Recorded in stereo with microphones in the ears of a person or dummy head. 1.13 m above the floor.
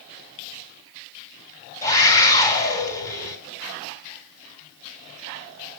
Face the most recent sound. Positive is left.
turn(degrees=20)  # may be behind; listen again after turning